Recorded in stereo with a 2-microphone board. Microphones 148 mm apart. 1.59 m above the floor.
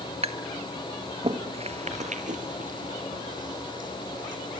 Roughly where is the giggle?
No giggle in this recording.